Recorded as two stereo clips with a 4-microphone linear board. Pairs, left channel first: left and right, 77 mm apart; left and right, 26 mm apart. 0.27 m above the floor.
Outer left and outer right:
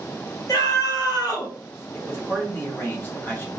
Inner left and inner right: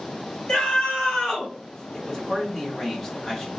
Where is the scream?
50° left (ahead or behind), 2 m; by 1.5 s 55° left (ahead or behind), 2.5 m.